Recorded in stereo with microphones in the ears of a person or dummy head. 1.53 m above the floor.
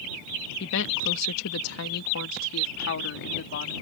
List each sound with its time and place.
0.6 s a woman speaking: 65° left (ahead or behind); by 3.7 s 55° left (ahead or behind)